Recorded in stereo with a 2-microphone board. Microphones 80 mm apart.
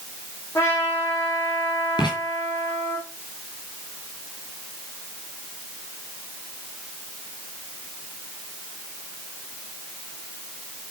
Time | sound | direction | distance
0.6 | a trumpet | 35° left (ahead or behind) | 4 m
2.0 | writing | 65° left (ahead or behind) | 5 m